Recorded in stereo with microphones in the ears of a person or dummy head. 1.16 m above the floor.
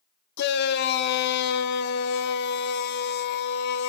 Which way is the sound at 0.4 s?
60° left (ahead or behind).